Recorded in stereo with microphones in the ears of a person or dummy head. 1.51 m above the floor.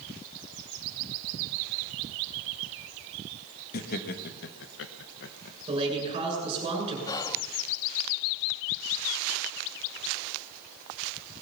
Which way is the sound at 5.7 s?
35° right (ahead or behind).